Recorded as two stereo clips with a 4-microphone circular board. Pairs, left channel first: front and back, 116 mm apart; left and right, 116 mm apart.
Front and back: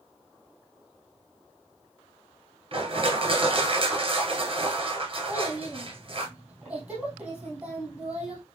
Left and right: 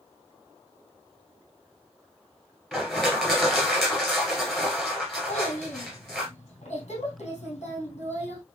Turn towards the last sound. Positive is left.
turn(degrees=100)